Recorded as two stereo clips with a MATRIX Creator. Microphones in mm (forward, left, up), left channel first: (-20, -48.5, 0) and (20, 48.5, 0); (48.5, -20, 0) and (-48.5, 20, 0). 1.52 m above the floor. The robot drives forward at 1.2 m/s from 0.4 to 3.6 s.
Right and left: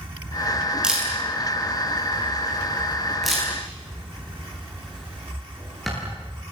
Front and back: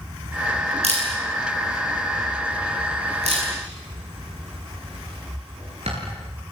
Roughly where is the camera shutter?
Behind left.